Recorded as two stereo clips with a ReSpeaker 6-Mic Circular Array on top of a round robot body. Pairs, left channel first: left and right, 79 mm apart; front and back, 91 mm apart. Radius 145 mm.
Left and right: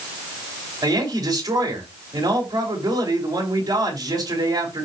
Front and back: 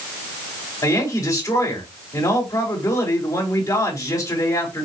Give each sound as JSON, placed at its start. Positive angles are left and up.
{"t": 0.8, "sound": "a woman speaking", "azimuth_deg": -50, "distance_m": 4.0}